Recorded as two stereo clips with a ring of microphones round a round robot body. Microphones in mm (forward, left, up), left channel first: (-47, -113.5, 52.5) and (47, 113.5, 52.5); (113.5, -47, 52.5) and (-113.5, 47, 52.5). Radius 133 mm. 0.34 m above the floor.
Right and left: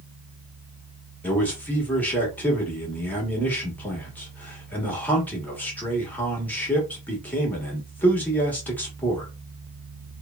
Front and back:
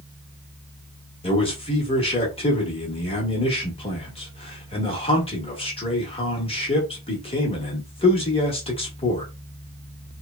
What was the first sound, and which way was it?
A man speaking, 40° right.